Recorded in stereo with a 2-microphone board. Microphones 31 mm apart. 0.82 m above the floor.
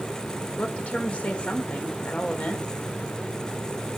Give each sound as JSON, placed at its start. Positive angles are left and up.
{"t": 0.6, "sound": "a woman speaking", "side_deg": 40, "distance_m": 3.5}